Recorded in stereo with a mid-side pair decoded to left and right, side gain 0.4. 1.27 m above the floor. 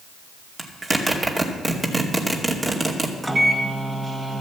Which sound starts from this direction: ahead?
A microwave, at 3.2 s.